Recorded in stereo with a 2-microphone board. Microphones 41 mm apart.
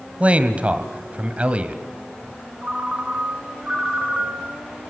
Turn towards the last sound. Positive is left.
turn(degrees=-30)  # may be behind; listen again after turning